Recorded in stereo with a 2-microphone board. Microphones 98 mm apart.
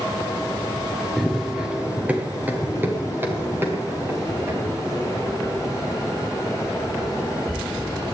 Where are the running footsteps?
Centre (ahead or behind), 1.5 m; by 8.1 s 30° right (ahead or behind), 8 m.